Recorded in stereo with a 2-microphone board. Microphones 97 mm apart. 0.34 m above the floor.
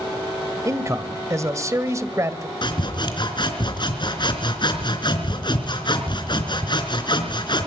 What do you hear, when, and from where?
0.7 s a man speaking: 30° right (ahead or behind), 1.6 m
2.6 s sawing: 50° left (ahead or behind), 3.5 m